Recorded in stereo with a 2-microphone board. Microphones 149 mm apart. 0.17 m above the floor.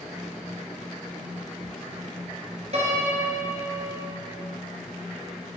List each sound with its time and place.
2.7 s a piano: 50° right (ahead or behind), 2 m